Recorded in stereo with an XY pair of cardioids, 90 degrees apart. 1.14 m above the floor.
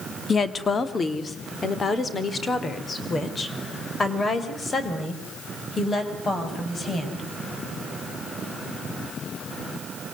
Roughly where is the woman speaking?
Ahead left.